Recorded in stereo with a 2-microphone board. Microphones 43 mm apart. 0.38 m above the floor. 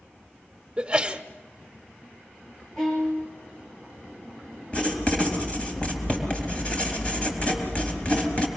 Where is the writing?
25° left (ahead or behind), 3.5 m.